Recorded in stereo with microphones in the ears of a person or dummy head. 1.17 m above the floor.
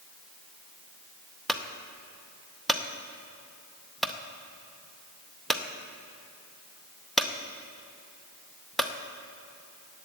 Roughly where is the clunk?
Centre.